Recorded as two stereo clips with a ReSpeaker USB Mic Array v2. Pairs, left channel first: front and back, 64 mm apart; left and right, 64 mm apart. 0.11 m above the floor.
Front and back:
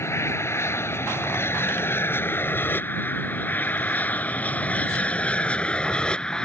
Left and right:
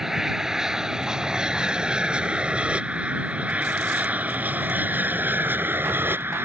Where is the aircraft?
10° right; by 6.5 s 70° right.